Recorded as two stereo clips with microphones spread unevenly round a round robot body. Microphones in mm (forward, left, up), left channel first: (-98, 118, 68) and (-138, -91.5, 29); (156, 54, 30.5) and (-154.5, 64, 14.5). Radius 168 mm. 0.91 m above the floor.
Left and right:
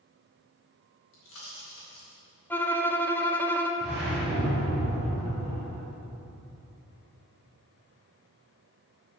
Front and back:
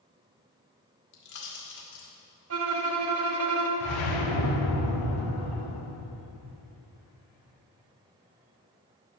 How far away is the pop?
About 2 m.